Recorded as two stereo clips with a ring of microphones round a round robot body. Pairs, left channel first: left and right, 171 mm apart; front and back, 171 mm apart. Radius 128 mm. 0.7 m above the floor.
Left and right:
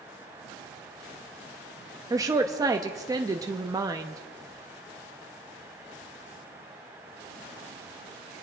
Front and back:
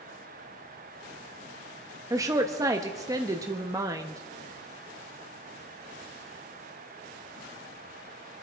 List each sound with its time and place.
2.1 s a woman speaking: 135° right, 0.7 m